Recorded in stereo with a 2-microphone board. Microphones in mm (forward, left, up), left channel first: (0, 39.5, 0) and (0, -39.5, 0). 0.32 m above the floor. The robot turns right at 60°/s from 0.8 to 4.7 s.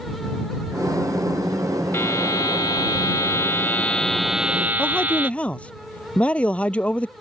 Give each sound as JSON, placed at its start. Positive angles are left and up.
{"t": 1.9, "sound": "a buzzer", "azimuth_deg": 45}
{"t": 4.8, "sound": "a man speaking", "side_deg": 15}